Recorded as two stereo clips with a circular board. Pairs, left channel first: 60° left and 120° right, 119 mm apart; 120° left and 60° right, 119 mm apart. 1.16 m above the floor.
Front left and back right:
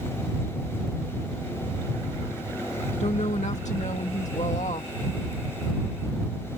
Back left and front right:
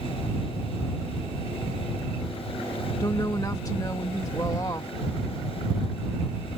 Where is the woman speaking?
60° left.